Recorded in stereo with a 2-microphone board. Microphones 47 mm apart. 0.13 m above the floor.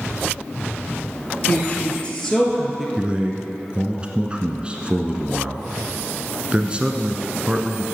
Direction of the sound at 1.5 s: 35° left (ahead or behind).